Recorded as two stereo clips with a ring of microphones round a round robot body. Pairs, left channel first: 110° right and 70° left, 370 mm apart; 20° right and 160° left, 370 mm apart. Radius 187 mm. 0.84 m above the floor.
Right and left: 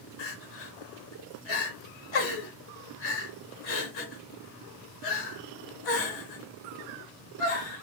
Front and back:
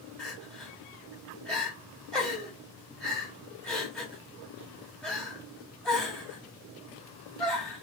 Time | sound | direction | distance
0.2 | crying | 110° right | 0.8 m